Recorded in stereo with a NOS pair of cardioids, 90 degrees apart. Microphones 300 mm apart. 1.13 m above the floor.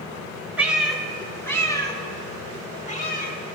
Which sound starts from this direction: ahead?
A cat meowing, at 0.6 s.